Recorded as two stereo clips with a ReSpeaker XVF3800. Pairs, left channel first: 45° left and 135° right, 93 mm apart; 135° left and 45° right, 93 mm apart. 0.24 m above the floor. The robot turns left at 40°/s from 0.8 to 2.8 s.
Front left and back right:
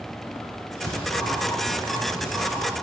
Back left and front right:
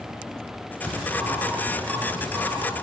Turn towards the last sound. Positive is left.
turn(degrees=-25)